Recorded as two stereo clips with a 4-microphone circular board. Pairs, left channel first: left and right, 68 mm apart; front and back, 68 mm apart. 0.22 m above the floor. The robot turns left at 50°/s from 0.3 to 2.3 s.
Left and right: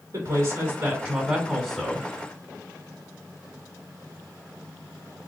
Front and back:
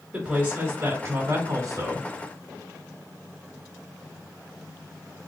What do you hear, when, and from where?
0.1 s a woman speaking: 120° right, 1.7 m; by 2.1 s 155° left, 1.7 m